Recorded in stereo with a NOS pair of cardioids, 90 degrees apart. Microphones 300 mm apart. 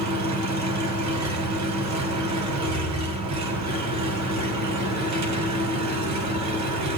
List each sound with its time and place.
0.0 s an engine running: 60° right, 2.5 m